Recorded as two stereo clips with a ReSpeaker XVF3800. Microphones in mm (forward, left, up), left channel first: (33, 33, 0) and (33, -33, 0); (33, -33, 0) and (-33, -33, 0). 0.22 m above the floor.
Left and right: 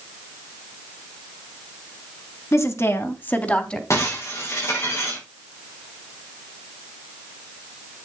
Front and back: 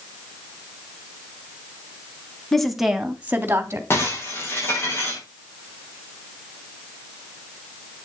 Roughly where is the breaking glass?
Ahead left.